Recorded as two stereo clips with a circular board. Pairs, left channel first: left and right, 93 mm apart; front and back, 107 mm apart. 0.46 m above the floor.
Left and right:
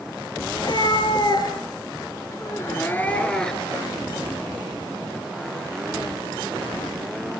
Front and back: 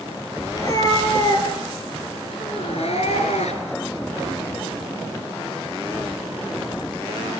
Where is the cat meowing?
55° left, 4.5 m; by 3.8 s straight ahead, 3 m.